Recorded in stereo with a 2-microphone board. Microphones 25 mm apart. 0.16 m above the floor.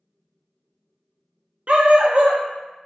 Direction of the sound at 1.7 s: 50° right (ahead or behind).